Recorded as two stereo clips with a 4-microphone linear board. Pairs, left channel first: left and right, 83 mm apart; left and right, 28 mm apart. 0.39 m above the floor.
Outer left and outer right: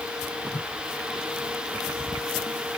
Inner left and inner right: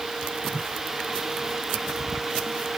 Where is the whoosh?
85° left.